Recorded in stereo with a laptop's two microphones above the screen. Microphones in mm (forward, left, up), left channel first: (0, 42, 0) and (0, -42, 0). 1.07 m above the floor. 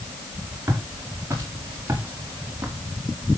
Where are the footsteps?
35° right (ahead or behind), 6.5 m; by 2.8 s 25° right (ahead or behind), 4 m.